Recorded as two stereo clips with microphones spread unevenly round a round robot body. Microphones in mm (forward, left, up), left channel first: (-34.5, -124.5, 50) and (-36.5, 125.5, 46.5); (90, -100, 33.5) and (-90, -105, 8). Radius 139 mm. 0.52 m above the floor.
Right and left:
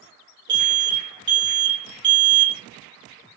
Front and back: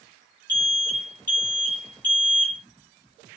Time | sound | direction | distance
0.5 | an alarm | 75° left | 1.6 m